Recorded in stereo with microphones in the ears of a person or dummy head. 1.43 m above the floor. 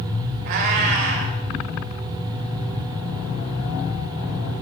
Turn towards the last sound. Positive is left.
turn(degrees=-50)  # may be behind; listen again after turning